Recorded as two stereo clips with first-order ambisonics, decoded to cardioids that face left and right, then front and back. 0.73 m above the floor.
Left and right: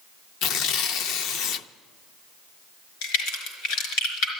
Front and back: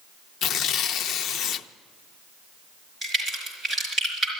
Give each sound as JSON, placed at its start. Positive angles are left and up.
{"t": 0.4, "sound": "tearing paper", "azimuth_deg": 50, "distance_m": 0.5}
{"t": 3.0, "sound": "a crack", "azimuth_deg": 100, "distance_m": 4.0}